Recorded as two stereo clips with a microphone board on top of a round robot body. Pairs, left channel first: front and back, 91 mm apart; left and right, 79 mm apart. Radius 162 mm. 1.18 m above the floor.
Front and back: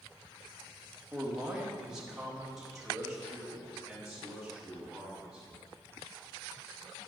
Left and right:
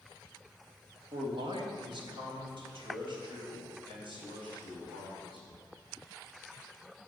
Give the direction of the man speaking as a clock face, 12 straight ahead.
3 o'clock.